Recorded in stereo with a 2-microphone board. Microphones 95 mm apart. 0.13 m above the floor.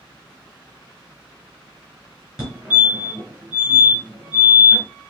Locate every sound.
2.4 s a fire alarm: 5° right (ahead or behind), 3 m